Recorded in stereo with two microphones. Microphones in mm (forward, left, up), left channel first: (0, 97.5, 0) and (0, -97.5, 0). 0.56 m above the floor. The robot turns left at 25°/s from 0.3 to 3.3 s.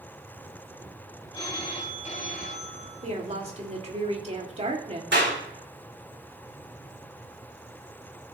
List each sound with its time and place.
1.3 s a phone ringing: 155° left, 1.6 m; by 3.1 s 115° left, 1.6 m
3.0 s a woman speaking: 40° right (ahead or behind), 1.9 m; by 5.0 s 35° right (ahead or behind), 1.9 m
5.1 s a clap: 70° right (ahead or behind), 3.5 m